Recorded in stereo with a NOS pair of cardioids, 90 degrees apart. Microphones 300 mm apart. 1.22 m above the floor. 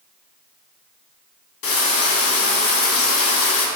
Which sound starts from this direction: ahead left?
Frying, at 1.6 s.